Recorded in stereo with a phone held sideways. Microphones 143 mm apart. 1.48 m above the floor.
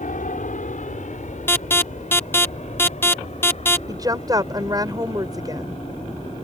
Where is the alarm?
15° left (ahead or behind).